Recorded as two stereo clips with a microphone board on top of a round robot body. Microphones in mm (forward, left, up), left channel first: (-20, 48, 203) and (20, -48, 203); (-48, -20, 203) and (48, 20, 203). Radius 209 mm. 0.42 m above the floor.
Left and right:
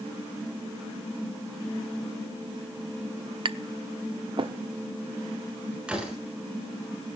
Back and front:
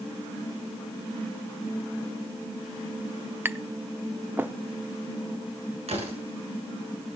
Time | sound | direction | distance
3.5 | tapping | 45° right | 0.9 m
5.9 | a door slam | 15° left | 7.5 m